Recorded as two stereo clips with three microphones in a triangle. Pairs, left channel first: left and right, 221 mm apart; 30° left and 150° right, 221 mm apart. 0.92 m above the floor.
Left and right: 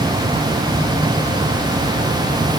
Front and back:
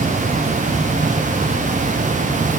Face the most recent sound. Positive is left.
No sound to turn to.